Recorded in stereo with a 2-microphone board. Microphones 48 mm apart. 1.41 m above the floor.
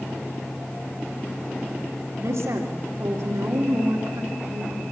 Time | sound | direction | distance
2.2 | a woman speaking | 70° right (ahead or behind) | 3 m